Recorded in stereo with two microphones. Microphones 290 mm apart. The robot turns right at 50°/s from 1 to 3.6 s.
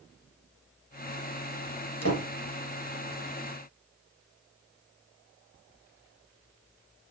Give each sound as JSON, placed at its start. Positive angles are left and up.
{"t": 2.0, "sound": "a door slam", "side_deg": 55, "distance_m": 2.5}